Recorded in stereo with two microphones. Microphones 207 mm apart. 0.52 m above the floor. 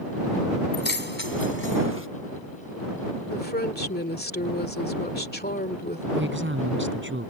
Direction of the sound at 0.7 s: 50° left (ahead or behind).